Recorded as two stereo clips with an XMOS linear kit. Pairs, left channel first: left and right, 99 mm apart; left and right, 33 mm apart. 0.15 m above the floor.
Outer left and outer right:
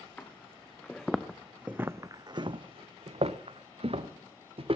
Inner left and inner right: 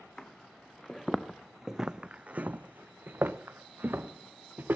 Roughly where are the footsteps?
Centre.